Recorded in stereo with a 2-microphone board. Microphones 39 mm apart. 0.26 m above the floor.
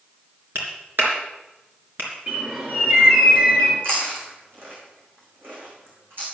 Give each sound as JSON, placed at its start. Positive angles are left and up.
{"t": 0.6, "sound": "a clap", "side_deg": -70, "distance_m": 3.5}
{"t": 2.3, "sound": "a bird", "side_deg": -40, "distance_m": 3.5}
{"t": 3.8, "sound": "chewing", "side_deg": -60, "distance_m": 4.0}